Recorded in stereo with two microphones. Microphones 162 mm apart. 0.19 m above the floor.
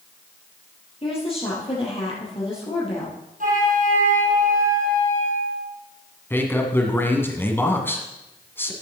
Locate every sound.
1.0 s a woman speaking: 35° left (ahead or behind), 4.5 m
3.4 s a flute: 55° right (ahead or behind), 2.5 m
6.3 s a man speaking: 15° left (ahead or behind), 1.7 m